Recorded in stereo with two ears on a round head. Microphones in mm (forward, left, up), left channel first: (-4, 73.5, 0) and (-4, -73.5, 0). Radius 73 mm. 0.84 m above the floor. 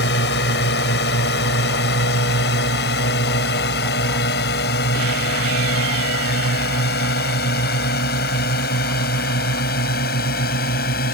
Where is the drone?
75° left (ahead or behind); by 11.1 s 65° left (ahead or behind).